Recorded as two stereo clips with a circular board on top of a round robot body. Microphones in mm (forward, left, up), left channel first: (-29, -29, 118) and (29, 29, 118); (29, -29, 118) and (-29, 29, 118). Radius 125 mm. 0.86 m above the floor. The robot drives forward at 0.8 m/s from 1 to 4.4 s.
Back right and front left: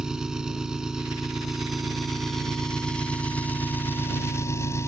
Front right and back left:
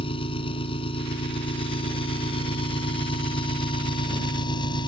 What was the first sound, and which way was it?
An engine running, 40° right.